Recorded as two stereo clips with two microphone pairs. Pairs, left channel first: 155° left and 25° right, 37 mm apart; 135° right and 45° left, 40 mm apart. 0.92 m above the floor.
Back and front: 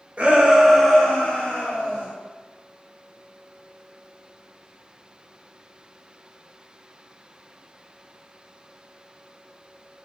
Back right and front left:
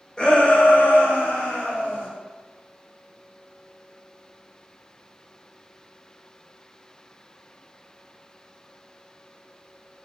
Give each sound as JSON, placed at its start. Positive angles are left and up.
{"t": 0.2, "sound": "a shout", "azimuth_deg": -70, "distance_m": 0.9}